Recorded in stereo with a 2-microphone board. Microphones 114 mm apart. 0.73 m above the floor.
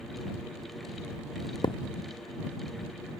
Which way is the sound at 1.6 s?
40° left (ahead or behind).